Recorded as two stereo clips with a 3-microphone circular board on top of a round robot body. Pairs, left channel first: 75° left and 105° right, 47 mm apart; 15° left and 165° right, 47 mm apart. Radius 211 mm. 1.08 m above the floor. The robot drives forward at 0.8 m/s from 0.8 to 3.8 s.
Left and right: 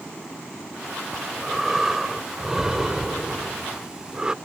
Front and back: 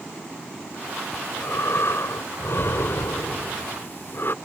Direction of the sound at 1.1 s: 20° right.